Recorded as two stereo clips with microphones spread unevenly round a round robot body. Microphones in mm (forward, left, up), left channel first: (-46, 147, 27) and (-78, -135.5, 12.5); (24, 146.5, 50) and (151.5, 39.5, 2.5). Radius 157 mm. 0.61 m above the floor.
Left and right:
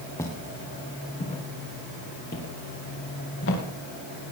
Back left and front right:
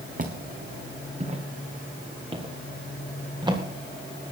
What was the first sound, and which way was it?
Footsteps, 5° left.